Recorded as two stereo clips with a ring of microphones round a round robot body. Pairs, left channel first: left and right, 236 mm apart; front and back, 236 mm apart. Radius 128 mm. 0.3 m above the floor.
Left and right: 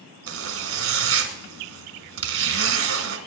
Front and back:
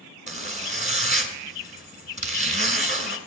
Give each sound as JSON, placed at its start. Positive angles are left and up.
{"t": 0.3, "sound": "a zipper", "azimuth_deg": -120, "distance_m": 1.7}